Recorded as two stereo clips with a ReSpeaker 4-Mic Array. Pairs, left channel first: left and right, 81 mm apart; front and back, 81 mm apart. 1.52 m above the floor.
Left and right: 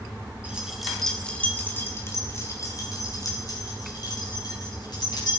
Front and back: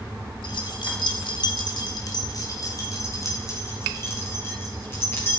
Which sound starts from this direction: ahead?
Keys jangling, at 0.4 s.